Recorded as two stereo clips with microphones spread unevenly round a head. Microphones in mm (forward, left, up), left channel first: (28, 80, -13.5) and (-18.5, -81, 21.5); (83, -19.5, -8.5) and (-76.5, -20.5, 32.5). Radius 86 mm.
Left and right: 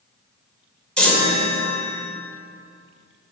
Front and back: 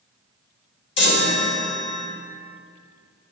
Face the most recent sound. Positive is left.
turn(degrees=-15)